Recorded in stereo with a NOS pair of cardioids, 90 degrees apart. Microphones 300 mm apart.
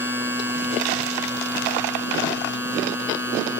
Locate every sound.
0.0 s a machine running: 5° right, 5 m